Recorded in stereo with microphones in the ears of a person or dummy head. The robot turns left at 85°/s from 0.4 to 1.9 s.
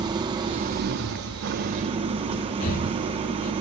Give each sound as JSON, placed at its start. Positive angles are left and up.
{"t": 0.0, "sound": "an engine running", "azimuth_deg": -25, "distance_m": 1.7}
{"t": 2.6, "sound": "breathing", "side_deg": 45, "distance_m": 2.0}